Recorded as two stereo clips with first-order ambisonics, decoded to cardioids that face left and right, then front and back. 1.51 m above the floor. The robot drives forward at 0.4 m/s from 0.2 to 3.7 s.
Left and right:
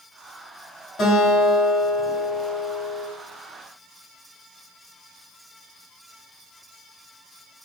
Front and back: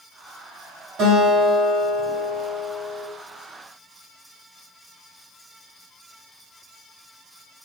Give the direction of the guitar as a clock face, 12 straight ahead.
7 o'clock.